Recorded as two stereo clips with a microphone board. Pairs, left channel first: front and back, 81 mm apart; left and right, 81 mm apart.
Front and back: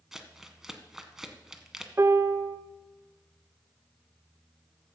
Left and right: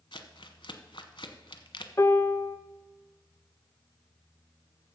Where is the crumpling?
95° left, 0.8 m.